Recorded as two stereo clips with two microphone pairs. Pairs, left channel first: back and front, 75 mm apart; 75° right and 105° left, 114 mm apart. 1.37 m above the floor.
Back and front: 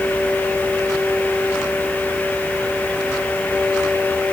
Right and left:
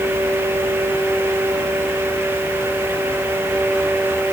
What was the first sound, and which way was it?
Only background noise.